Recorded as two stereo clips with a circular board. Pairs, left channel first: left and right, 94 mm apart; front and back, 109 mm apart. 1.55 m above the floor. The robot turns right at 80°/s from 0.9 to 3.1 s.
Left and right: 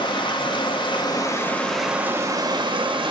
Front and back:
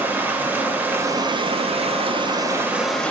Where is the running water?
110° left, 0.9 m; by 3.1 s 75° right, 0.9 m.